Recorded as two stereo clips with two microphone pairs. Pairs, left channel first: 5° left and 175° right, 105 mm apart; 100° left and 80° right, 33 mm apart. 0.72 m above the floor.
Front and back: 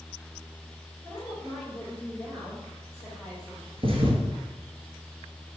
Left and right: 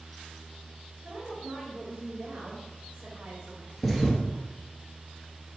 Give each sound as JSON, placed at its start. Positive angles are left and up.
{"t": 1.0, "sound": "a woman speaking", "azimuth_deg": -65, "distance_m": 2.0}
{"t": 3.8, "sound": "a thud", "azimuth_deg": -170, "distance_m": 1.2}